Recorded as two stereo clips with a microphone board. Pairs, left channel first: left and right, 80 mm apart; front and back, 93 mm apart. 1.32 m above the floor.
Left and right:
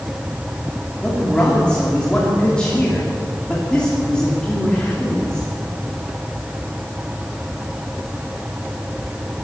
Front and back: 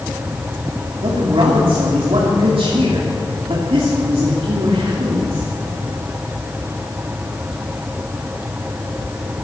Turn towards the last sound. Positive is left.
turn(degrees=170)